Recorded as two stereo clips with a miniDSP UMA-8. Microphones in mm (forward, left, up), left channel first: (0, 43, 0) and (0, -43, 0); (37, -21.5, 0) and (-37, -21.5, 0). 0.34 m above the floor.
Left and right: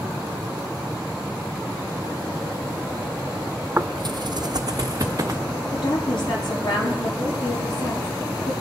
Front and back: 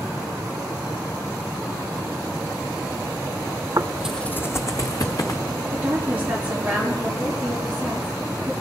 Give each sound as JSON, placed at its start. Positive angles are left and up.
{"t": 3.8, "sound": "footsteps", "azimuth_deg": -150, "distance_m": 0.6}
{"t": 5.7, "sound": "a woman speaking", "azimuth_deg": 105, "distance_m": 7.0}